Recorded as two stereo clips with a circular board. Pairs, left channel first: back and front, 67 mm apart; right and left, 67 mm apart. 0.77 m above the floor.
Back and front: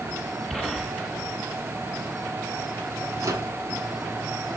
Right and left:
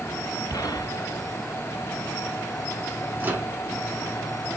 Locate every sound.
0.5 s a gunshot: 85° right, 1.9 m
3.2 s a microwave: 30° left, 1.5 m